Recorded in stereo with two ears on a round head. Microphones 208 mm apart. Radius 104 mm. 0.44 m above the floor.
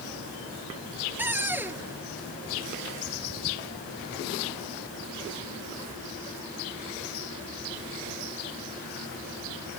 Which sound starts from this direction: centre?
A cupboard door, at 1.2 s.